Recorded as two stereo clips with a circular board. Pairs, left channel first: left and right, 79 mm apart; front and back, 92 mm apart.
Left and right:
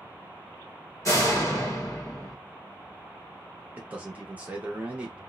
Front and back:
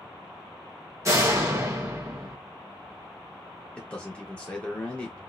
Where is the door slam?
130° left, 0.8 m.